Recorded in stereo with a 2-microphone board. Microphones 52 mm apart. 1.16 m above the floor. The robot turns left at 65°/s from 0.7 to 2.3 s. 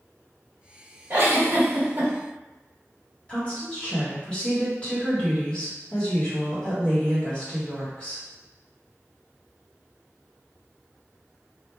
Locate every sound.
1.1 s a giggle: 60° right, 1.1 m; by 2.1 s 125° right, 1.1 m
3.3 s a woman speaking: 20° left (ahead or behind), 1.4 m